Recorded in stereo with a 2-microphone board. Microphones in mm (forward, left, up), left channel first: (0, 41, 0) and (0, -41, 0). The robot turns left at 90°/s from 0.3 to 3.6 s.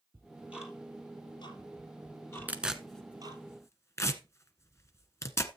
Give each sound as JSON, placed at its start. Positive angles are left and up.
{"t": 0.1, "sound": "ticking", "side_deg": -30, "distance_m": 3.5}
{"t": 2.5, "sound": "tearing paper", "side_deg": -20, "distance_m": 1.3}